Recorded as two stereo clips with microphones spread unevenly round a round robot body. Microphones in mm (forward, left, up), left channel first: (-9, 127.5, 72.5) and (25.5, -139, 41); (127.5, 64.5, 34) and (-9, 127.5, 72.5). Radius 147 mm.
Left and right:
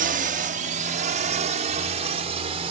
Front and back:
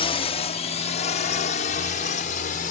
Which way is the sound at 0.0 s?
40° right.